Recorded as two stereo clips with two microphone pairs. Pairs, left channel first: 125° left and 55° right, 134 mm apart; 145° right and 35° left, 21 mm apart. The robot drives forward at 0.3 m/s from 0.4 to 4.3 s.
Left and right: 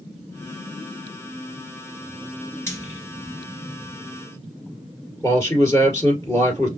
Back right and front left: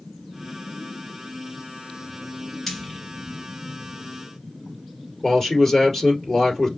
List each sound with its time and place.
2.7 s frying: 170° left, 1.8 m
5.2 s a man speaking: 175° right, 2.0 m